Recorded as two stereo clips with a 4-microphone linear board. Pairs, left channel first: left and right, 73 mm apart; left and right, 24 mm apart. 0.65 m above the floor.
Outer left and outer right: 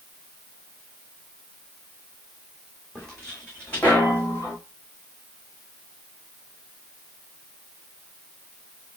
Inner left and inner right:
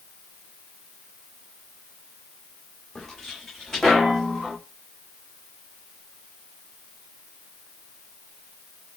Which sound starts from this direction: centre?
Footsteps, at 3.0 s.